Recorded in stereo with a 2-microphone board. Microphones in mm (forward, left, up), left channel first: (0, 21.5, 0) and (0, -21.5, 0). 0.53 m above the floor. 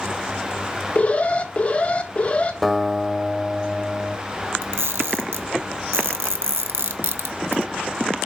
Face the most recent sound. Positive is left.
turn(degrees=-65)  # may be behind; listen again after turning